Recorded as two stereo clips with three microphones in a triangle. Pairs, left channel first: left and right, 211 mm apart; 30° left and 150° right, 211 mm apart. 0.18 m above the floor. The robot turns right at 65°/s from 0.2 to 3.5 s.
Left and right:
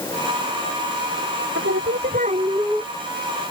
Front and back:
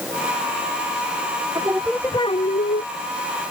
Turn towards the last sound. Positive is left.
turn(degrees=45)